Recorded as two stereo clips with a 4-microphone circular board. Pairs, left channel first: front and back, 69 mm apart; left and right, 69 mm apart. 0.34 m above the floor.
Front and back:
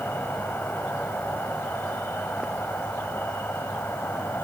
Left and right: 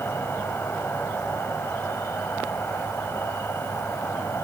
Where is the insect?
50° left, 1.6 m.